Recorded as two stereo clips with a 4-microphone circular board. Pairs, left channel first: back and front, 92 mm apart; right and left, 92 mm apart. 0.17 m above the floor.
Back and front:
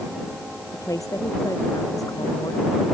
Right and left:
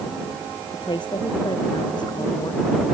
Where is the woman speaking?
125° right; by 2.9 s 130° right.